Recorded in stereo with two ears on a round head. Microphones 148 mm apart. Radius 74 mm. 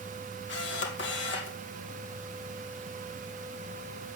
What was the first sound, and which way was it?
A camera shutter, 75° left (ahead or behind).